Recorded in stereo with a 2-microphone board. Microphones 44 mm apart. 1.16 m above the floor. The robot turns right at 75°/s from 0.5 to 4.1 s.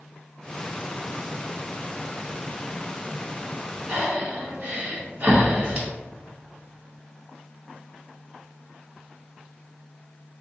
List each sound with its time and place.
3.9 s breathing: 35° right (ahead or behind), 1.0 m; by 5.9 s 30° right (ahead or behind), 1.0 m